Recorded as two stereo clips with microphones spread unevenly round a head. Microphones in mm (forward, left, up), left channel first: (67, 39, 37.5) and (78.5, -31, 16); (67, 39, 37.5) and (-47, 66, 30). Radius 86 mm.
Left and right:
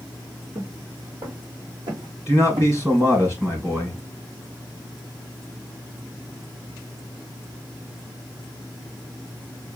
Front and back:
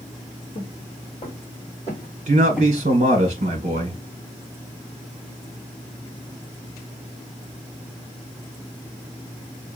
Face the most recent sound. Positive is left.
turn(degrees=-150)